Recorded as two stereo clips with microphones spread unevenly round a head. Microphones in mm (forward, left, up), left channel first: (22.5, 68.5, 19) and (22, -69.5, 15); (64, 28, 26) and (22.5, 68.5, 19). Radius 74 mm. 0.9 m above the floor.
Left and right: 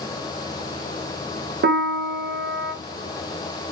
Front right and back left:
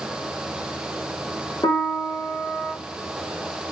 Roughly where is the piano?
Right.